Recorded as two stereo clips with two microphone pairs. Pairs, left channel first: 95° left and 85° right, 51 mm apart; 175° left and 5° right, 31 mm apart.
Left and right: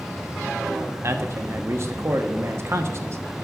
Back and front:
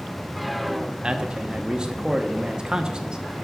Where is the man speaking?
65° right, 1.0 m.